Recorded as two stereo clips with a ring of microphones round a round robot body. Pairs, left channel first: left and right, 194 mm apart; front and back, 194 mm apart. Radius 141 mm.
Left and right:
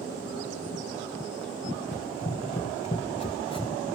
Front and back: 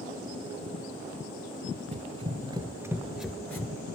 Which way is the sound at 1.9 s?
145° left.